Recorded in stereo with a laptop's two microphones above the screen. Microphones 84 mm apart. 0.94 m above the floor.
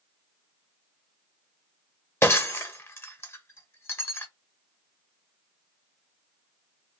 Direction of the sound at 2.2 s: 30° left (ahead or behind).